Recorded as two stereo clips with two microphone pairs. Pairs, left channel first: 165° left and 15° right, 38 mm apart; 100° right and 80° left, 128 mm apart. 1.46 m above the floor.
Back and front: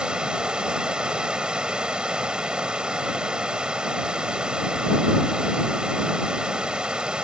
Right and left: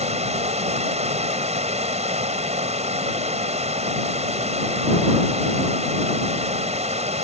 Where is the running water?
50° left.